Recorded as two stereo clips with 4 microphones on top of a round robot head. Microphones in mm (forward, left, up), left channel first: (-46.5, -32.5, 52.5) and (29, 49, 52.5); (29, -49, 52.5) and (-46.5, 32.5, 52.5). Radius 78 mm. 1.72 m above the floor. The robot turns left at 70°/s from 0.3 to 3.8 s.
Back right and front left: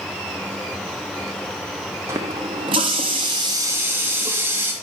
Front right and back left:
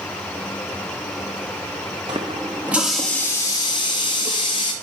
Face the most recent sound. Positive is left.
turn(degrees=-20)